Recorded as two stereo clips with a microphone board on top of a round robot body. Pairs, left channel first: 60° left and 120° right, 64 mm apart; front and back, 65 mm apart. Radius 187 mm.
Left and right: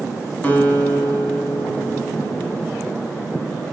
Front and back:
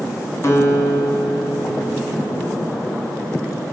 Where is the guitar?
5° left, 1.1 m.